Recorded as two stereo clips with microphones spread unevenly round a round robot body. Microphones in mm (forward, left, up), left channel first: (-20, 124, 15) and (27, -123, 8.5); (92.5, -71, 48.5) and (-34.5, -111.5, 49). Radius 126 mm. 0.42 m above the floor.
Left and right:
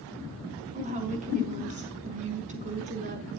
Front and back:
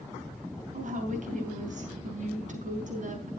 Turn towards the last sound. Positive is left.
turn(degrees=-140)